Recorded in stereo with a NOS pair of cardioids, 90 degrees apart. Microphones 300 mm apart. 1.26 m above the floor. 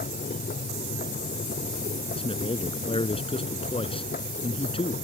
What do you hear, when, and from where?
0.0 s a machine running: 30° left
2.2 s a man speaking: 20° left